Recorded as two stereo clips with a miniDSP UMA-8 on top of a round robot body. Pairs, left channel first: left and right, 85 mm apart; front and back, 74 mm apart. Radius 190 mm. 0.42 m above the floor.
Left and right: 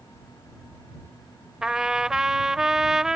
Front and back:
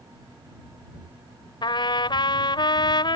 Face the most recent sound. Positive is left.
turn(degrees=-5)